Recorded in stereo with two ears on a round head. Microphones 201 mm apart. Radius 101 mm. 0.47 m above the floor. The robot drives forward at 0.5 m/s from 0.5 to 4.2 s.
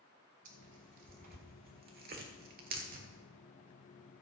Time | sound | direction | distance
0.5 | tearing paper | 35° right (ahead or behind) | 1.7 m